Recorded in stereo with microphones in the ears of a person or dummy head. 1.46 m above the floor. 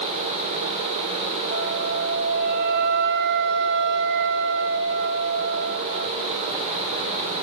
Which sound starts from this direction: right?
A flute, at 1.5 s.